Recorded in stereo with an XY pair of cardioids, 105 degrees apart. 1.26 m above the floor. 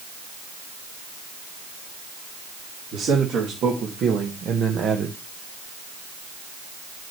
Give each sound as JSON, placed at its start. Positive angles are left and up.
{"t": 2.9, "sound": "a man speaking", "azimuth_deg": -65, "distance_m": 2.5}